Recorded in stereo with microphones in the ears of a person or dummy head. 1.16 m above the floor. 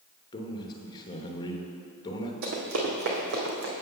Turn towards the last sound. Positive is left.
turn(degrees=-70)  # may be behind; listen again after turning